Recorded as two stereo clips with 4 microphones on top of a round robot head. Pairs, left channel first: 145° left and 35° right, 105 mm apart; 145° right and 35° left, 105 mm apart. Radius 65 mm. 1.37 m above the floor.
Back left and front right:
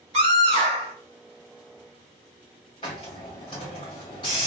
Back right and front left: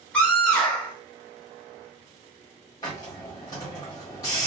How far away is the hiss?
About 1.3 m.